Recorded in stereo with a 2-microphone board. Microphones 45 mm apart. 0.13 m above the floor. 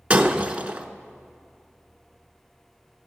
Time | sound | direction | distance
0.1 | breaking glass | 30° right (ahead or behind) | 0.8 m